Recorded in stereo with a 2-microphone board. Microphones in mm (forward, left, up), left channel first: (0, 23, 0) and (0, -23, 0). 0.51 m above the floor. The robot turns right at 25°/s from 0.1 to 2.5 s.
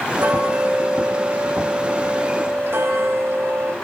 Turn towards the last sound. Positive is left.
turn(degrees=-65)